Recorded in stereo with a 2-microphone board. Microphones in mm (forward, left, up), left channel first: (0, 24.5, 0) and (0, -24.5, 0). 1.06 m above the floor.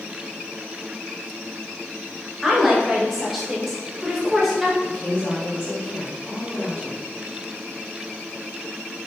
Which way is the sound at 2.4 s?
Centre (ahead or behind).